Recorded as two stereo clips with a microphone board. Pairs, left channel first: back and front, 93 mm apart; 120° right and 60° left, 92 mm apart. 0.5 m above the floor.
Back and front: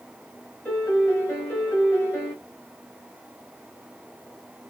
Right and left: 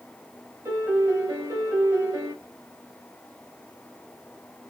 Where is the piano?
120° left, 1.8 m.